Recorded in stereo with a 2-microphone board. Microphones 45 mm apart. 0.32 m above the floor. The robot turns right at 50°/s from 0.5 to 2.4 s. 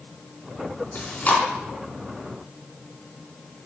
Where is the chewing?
50° left (ahead or behind), 4 m; by 1.4 s 30° left (ahead or behind), 4 m.